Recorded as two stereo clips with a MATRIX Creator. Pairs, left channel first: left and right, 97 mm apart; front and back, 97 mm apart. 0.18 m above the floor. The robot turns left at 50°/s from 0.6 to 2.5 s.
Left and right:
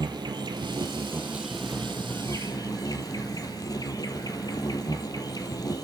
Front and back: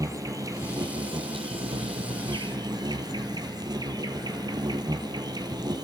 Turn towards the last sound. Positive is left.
turn(degrees=135)